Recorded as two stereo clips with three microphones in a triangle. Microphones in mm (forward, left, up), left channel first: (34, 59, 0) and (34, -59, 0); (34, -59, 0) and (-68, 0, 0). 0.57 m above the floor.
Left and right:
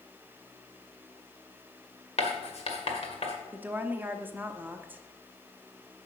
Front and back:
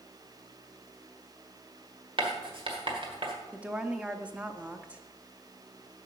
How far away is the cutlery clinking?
No cutlery clinking in this recording.